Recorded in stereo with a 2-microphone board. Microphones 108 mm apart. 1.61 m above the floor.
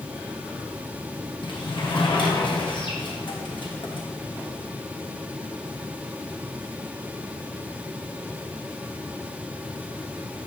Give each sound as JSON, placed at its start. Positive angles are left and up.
{"t": 1.4, "sound": "a sliding door", "side_deg": 45, "distance_m": 1.2}